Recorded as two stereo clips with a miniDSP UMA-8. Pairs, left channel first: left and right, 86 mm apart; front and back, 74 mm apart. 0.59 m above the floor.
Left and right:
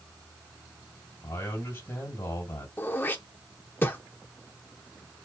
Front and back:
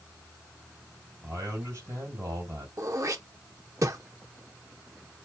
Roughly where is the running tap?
I don't hear a running tap.